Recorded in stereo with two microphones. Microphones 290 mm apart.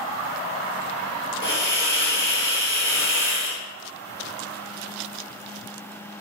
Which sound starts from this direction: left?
A hiss, at 1.4 s.